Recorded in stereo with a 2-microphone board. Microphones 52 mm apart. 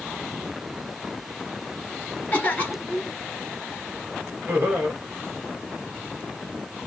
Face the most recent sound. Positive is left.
turn(degrees=-40)  # may be behind; listen again after turning